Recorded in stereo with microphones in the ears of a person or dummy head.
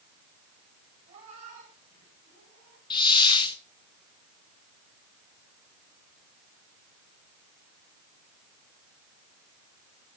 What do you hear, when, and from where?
1.1 s a cat meowing: 40° right (ahead or behind), 6.5 m; by 2.8 s 60° right (ahead or behind), 6.5 m
2.9 s a hiss: 25° left (ahead or behind), 0.9 m